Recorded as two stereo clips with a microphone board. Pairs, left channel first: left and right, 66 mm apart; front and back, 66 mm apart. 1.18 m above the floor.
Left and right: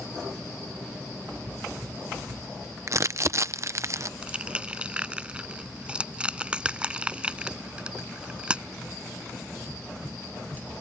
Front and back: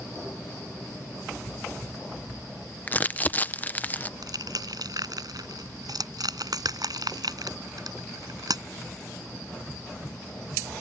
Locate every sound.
2.9 s crumpling: 60° right
4.2 s crushing: 165° right